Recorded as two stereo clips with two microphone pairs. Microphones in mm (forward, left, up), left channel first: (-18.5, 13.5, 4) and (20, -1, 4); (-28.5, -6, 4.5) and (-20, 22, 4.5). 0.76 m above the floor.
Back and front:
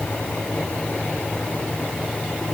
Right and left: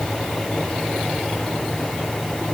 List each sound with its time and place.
Only background noise.